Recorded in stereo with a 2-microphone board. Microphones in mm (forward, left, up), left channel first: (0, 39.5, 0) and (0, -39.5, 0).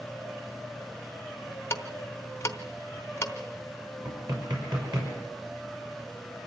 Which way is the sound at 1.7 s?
35° left (ahead or behind).